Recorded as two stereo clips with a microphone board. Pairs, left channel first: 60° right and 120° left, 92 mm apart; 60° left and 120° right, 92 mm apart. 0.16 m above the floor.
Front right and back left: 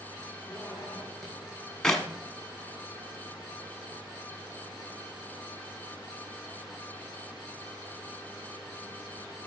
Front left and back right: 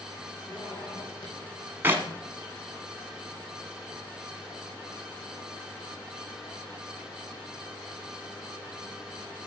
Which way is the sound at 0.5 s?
30° left.